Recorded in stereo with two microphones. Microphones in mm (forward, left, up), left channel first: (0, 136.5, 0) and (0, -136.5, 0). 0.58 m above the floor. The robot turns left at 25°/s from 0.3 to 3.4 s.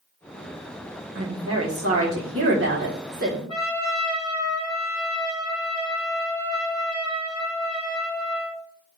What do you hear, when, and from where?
1.1 s a woman speaking: 85° right, 1.4 m; by 3.4 s 140° right, 1.4 m
3.5 s a trumpet: 20° left (ahead or behind), 2.5 m